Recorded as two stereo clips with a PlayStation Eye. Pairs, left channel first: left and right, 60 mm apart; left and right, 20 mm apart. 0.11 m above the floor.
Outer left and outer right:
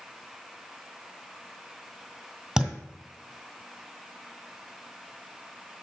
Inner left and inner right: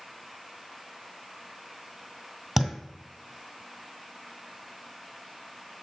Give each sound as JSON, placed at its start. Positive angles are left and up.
{"t": 2.6, "sound": "a thud", "side_deg": -5, "distance_m": 1.7}